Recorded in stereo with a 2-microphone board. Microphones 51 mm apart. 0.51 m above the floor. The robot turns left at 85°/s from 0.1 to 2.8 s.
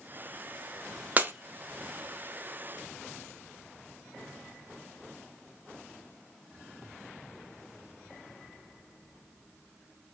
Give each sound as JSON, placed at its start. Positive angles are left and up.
{"t": 1.2, "sound": "breaking glass", "side_deg": -30, "distance_m": 0.6}